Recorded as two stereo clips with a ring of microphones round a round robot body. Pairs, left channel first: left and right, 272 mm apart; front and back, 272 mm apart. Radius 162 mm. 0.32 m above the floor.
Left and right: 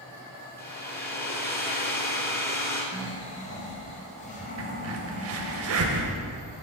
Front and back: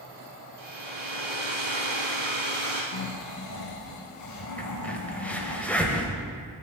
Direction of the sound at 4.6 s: 85° right.